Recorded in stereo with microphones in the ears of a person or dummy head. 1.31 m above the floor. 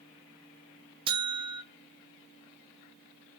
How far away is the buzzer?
About 0.6 m.